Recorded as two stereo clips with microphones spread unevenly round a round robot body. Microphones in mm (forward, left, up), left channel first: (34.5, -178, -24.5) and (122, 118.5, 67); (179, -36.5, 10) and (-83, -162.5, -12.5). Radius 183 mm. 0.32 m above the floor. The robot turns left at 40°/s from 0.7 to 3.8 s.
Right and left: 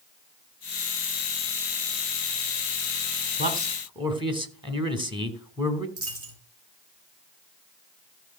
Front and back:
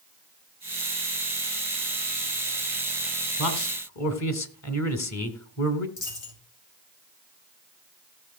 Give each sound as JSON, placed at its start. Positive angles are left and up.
{"t": 3.4, "sound": "a man speaking", "azimuth_deg": 10, "distance_m": 3.0}
{"t": 6.0, "sound": "a dropped coin", "azimuth_deg": 25, "distance_m": 5.0}